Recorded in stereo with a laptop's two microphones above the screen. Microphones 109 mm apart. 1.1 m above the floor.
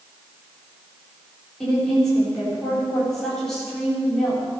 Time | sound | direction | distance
1.6 | a woman speaking | 5° left (ahead or behind) | 4 m